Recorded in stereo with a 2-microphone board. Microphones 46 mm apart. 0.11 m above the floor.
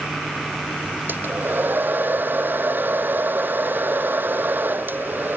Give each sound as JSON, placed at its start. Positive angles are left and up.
{"t": 1.1, "sound": "a hair dryer", "side_deg": -45}